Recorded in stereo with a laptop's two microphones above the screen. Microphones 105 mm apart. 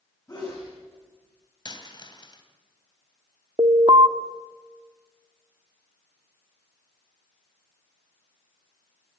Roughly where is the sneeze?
Left.